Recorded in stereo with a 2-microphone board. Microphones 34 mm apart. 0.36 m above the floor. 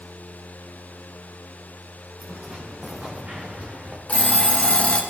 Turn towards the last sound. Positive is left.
turn(degrees=35)  # may be behind; listen again after turning